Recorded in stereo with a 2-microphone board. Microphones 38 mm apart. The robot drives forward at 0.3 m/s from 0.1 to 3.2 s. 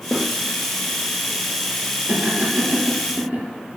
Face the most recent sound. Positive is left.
turn(degrees=-30)  # may be behind; listen again after turning